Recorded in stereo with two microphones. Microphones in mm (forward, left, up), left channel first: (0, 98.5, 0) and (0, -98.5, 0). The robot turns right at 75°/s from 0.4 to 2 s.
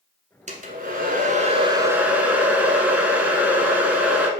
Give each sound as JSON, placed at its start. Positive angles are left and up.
{"t": 0.5, "sound": "a hair dryer", "azimuth_deg": -125, "distance_m": 1.1}